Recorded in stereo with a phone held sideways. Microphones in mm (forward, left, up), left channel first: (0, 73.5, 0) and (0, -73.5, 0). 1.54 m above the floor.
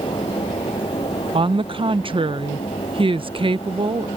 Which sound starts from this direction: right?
A woman speaking, at 1.3 s.